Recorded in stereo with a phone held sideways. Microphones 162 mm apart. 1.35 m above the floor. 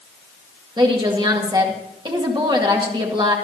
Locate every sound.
0.8 s a woman speaking: 30° right (ahead or behind), 1.9 m